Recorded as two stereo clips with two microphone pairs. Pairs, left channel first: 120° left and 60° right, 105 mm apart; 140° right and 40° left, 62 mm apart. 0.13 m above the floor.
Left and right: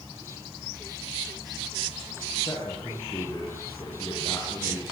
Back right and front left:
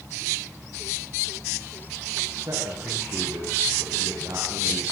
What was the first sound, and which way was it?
A man speaking, 60° left.